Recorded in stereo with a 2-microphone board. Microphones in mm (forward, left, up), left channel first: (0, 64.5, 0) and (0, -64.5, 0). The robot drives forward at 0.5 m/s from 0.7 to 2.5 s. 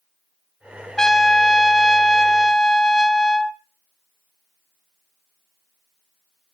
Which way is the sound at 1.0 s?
5° left (ahead or behind).